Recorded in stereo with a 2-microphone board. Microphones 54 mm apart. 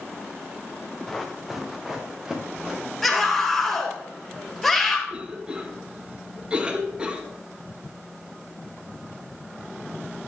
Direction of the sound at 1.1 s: 5° left (ahead or behind).